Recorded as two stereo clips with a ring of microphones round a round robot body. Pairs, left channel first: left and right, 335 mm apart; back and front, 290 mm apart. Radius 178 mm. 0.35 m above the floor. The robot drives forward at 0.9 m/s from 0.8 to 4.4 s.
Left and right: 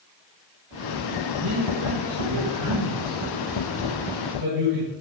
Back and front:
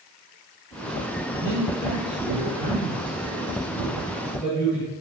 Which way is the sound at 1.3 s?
45° right.